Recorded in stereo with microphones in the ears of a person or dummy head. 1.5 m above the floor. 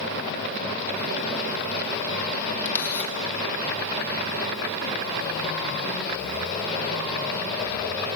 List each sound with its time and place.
2.6 s a camera shutter: 15° left (ahead or behind), 2.5 m